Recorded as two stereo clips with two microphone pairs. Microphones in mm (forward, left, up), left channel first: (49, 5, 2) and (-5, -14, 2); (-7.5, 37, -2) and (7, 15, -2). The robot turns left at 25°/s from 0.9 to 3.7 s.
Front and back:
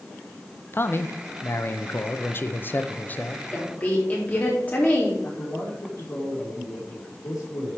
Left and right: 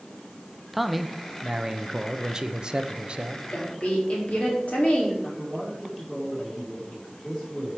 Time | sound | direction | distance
0.7 | a man speaking | 35° left | 0.7 m
3.5 | a woman speaking | 90° left | 3.5 m
5.2 | a man speaking | 35° left | 4.5 m